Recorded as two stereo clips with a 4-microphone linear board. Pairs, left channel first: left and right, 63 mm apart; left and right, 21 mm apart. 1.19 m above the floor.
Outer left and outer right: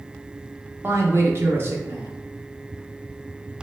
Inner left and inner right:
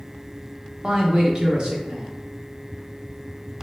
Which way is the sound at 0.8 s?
40° right (ahead or behind).